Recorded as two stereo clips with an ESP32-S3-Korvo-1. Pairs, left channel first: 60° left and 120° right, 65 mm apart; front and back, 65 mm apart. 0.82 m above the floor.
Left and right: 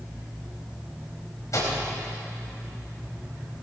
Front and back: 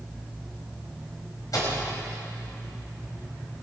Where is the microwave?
25° left, 4.5 m.